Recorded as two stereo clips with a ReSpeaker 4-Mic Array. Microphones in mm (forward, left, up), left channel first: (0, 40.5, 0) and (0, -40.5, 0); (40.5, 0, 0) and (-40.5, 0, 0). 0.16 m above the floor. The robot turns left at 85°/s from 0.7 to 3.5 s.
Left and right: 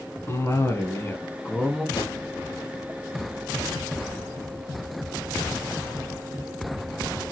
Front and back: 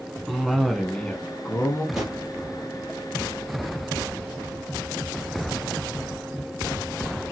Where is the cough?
90° left, 1.2 m; by 1.9 s 10° right, 1.2 m.